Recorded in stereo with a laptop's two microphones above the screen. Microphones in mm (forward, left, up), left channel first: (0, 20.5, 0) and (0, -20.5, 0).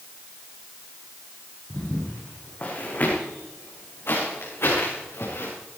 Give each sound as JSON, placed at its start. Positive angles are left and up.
{"t": 1.7, "sound": "footsteps", "side_deg": 20, "distance_m": 4.0}